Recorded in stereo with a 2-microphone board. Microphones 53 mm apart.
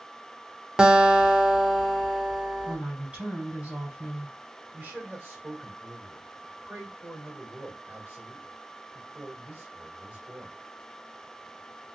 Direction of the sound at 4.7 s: 35° right (ahead or behind).